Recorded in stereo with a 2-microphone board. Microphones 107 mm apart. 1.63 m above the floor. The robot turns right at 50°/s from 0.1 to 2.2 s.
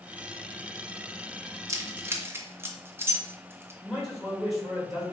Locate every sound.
1.7 s keys jangling: 25° right (ahead or behind), 0.7 m; by 3.7 s 20° right (ahead or behind), 0.7 m
3.8 s a man speaking: centre (ahead or behind), 2.5 m